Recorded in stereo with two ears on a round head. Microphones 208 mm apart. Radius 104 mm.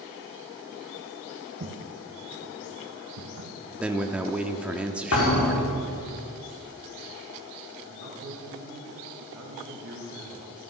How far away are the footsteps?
About 2 m.